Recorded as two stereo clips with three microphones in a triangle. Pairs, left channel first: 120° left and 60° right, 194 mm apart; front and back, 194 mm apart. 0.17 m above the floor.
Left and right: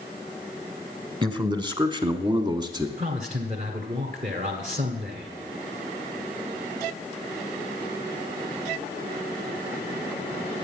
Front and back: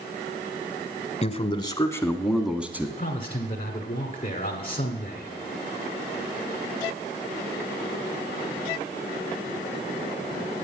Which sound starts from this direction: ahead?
A man speaking, at 1.2 s.